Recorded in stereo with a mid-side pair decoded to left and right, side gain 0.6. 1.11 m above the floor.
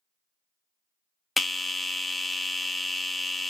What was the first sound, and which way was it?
A bell, 15° left.